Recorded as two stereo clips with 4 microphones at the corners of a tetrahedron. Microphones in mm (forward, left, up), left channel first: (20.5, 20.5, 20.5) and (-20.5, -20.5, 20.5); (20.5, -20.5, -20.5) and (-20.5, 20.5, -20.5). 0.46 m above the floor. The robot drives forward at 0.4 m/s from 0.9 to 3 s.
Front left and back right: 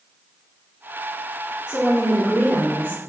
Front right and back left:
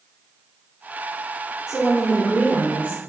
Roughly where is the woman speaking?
Behind.